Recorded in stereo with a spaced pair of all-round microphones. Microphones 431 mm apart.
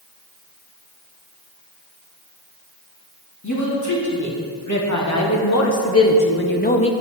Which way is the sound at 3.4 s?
40° left (ahead or behind).